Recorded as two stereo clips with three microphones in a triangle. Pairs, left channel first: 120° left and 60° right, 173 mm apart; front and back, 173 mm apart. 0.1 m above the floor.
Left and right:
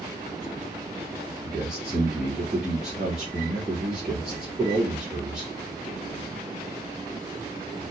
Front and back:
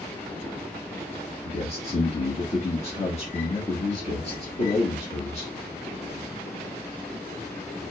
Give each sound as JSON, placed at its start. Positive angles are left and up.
{"t": 1.4, "sound": "a man speaking", "azimuth_deg": 25, "distance_m": 1.9}